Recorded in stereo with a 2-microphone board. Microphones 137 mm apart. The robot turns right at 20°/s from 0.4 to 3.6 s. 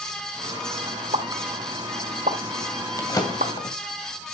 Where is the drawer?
20° left (ahead or behind), 2.5 m; by 3.8 s 35° left (ahead or behind), 2.5 m.